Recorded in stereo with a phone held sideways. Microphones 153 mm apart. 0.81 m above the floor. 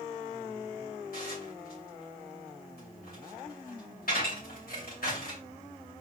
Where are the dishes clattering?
75° left (ahead or behind), 2.5 m.